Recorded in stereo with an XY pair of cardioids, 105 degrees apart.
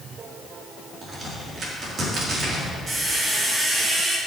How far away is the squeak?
About 1.9 m.